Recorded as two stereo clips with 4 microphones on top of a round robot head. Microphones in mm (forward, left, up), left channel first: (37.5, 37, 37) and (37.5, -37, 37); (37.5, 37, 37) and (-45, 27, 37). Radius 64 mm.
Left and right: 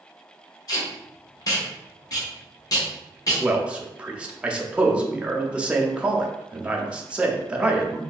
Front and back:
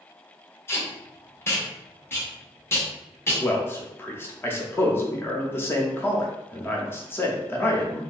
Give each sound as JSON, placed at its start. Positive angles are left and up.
{"t": 0.7, "sound": "tape being pulled", "azimuth_deg": 60, "distance_m": 1.1}
{"t": 3.4, "sound": "a man speaking", "azimuth_deg": -30, "distance_m": 0.7}